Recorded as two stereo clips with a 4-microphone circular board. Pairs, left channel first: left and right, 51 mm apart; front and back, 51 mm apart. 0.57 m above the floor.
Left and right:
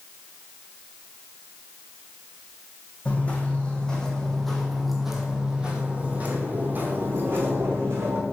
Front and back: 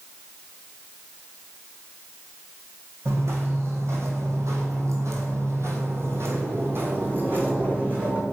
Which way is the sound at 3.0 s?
150° left.